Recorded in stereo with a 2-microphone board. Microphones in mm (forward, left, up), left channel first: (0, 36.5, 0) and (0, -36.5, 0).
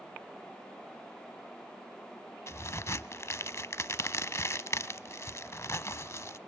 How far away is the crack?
About 0.6 m.